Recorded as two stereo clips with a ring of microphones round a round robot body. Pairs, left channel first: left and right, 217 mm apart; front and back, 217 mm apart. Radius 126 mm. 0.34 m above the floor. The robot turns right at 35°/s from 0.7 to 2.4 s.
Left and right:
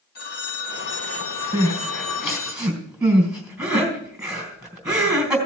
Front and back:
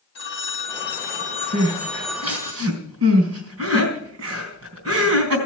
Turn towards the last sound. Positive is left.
turn(degrees=-175)